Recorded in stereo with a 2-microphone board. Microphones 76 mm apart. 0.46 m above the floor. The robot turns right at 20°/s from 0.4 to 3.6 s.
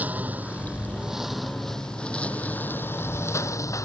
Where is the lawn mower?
20° right; by 3.9 s 45° left.